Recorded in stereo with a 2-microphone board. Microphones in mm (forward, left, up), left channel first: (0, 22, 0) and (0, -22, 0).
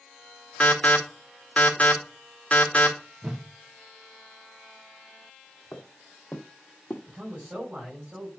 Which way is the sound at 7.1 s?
30° right (ahead or behind).